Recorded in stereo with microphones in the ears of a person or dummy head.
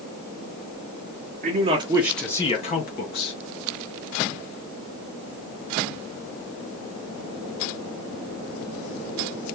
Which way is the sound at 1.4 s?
40° right (ahead or behind).